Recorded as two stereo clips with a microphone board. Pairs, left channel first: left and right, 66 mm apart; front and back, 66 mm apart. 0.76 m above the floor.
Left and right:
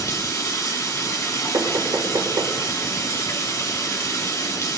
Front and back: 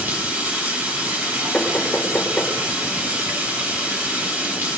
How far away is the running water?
About 4 m.